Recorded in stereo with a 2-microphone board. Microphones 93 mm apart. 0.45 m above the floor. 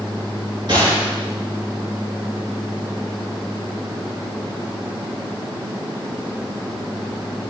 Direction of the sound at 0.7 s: 50° right (ahead or behind).